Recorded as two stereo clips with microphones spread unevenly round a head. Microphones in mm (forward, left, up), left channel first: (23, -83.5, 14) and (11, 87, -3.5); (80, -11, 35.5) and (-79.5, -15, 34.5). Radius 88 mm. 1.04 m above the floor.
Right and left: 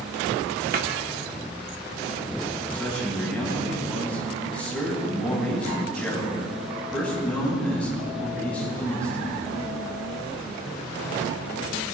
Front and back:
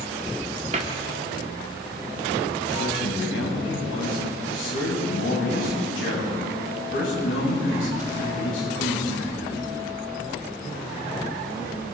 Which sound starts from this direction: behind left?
A cupboard door, at 0.7 s.